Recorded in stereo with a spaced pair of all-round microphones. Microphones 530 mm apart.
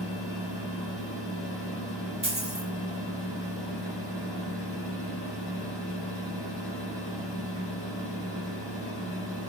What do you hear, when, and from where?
0.0 s a fan: 45° left (ahead or behind), 1.2 m
2.2 s a dropped coin: 10° right (ahead or behind), 1.0 m